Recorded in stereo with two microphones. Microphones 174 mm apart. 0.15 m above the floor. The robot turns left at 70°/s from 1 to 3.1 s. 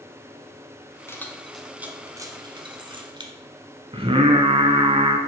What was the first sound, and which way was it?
Keys jangling, 15° left (ahead or behind).